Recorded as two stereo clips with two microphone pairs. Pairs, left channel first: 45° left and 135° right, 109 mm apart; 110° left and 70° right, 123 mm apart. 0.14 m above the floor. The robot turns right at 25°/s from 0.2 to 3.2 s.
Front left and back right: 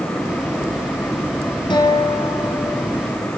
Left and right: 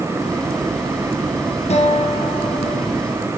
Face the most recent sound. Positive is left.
turn(degrees=125)